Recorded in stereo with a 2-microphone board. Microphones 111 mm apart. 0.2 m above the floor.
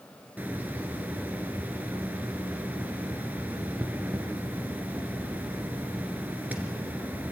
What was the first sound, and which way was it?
A hiss, 15° right (ahead or behind).